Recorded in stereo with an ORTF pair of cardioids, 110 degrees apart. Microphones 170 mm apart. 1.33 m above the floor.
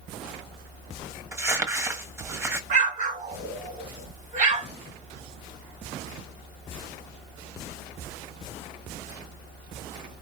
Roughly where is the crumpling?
Ahead.